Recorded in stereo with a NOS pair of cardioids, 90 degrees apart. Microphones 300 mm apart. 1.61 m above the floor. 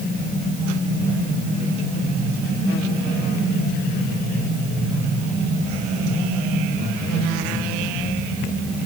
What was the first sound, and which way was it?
Only background noise.